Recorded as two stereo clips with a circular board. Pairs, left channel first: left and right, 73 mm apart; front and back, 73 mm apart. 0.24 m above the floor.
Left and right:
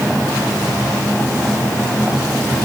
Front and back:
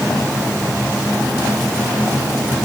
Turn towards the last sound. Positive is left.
No sound to turn to.